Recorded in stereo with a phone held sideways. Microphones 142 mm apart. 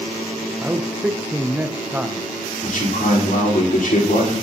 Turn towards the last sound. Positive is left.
turn(degrees=70)  # may be behind; listen again after turning